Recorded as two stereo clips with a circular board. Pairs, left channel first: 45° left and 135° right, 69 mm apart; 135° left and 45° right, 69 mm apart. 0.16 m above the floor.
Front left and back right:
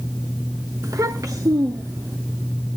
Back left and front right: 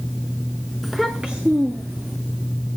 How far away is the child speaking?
About 0.9 m.